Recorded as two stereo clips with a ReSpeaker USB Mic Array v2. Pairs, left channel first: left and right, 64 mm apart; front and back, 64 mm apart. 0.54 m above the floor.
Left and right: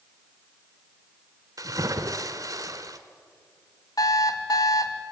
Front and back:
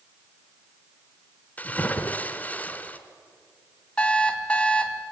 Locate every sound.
1.6 s a splash: 65° right, 1.6 m
4.0 s an alarm clock: 70° left, 1.7 m